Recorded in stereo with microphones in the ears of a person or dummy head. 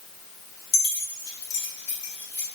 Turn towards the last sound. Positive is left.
turn(degrees=55)  # may be behind; listen again after turning